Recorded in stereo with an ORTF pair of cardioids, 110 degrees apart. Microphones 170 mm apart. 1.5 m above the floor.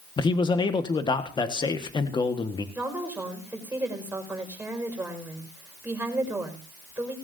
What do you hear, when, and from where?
0.2 s a man speaking: 25° left, 1.5 m
2.8 s a woman speaking: 10° right, 5 m